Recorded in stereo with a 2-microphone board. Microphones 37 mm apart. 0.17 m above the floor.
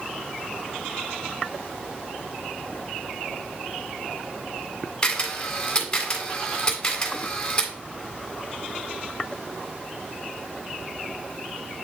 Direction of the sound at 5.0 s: 20° left (ahead or behind).